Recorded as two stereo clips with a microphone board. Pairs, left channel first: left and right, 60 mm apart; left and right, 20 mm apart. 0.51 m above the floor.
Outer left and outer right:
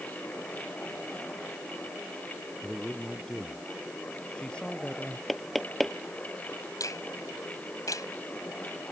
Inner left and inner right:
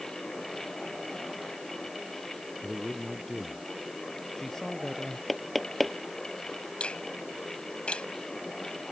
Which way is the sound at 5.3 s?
Centre (ahead or behind).